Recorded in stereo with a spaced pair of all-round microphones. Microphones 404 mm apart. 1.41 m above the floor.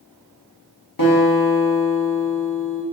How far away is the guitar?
About 1.1 m.